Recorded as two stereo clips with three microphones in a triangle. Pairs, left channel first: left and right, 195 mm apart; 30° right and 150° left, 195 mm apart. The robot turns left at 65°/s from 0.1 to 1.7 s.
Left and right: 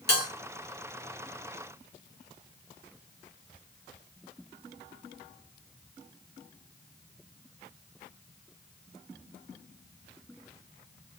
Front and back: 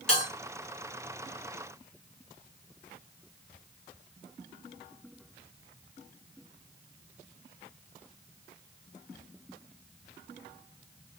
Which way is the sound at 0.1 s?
55° left.